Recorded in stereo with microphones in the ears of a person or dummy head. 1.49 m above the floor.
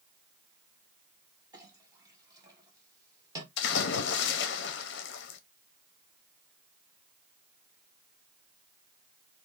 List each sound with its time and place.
1.5 s a clink: 20° right (ahead or behind), 1.1 m
3.6 s a splash: 70° left (ahead or behind), 0.6 m